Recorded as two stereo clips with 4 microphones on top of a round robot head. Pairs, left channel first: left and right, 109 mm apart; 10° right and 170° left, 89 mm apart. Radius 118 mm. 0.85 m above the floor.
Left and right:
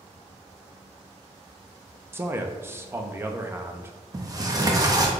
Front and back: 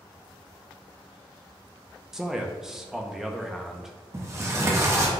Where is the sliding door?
140° right, 0.8 m.